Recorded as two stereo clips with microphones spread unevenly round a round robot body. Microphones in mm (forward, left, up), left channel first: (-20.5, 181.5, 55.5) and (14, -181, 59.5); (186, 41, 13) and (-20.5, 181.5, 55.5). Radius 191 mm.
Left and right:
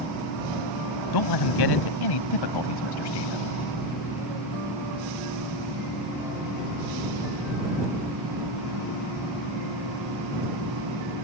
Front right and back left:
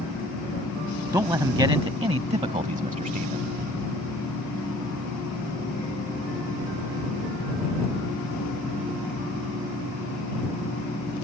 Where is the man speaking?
65° left; by 3.5 s 90° left.